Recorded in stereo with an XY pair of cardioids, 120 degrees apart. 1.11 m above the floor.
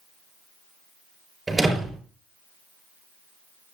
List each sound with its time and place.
1.5 s a door slam: 20° right, 4.5 m